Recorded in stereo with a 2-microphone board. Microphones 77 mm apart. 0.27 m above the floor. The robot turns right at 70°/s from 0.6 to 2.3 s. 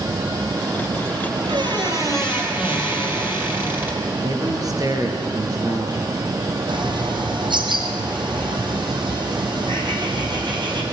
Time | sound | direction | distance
1.4 | a squeak | 80° right | 5.5 m
4.2 | a man speaking | 50° right (ahead or behind) | 5 m
6.7 | a bird | 75° right (ahead or behind) | 4.5 m